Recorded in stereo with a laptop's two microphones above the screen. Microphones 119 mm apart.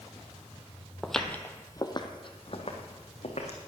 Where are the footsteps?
Centre (ahead or behind), 1.4 m; by 3.6 s 70° left (ahead or behind), 3 m.